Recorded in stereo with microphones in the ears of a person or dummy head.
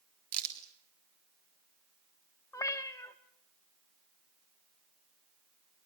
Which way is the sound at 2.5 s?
15° left (ahead or behind).